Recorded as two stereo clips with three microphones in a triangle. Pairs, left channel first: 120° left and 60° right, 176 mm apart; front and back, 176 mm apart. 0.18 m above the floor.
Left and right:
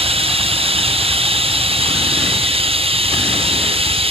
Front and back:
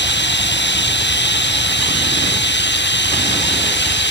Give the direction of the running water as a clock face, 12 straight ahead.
12 o'clock.